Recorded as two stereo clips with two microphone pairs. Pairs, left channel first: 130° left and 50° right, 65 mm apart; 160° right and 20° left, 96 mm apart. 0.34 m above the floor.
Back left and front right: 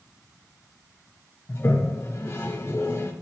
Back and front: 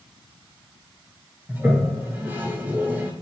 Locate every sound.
1.5 s a toilet flushing: 85° left, 1.3 m